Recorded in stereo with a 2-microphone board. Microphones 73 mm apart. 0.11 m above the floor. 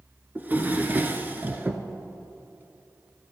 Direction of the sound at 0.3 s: 25° right (ahead or behind).